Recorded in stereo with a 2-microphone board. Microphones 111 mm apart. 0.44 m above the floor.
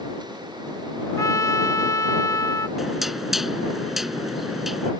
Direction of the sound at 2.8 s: Centre (ahead or behind).